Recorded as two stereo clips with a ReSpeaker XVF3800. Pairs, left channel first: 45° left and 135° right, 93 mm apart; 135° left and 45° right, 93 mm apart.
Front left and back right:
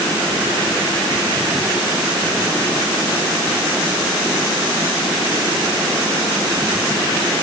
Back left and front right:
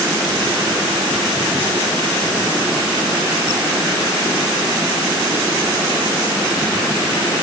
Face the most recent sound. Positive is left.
No sound to turn to.